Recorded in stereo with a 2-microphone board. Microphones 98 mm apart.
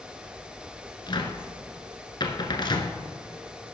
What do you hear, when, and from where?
1.1 s a cupboard door: 50° left (ahead or behind), 0.9 m